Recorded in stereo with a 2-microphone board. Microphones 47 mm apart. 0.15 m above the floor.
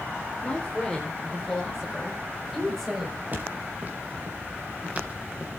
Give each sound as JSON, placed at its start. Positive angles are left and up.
{"t": 0.4, "sound": "a man speaking", "side_deg": 10, "distance_m": 3.5}
{"t": 3.3, "sound": "footsteps", "side_deg": -40, "distance_m": 5.0}